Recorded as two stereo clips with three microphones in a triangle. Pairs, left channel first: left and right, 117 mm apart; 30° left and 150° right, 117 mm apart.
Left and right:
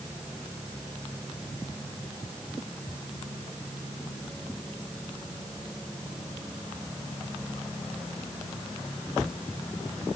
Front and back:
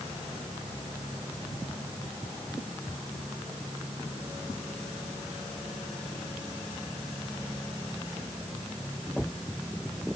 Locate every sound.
Only background noise.